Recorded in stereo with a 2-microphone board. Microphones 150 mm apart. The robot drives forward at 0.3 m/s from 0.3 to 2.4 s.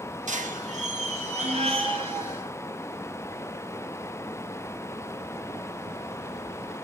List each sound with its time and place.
0.3 s a squeak: 60° right (ahead or behind), 0.5 m; by 2.5 s 35° right (ahead or behind), 0.8 m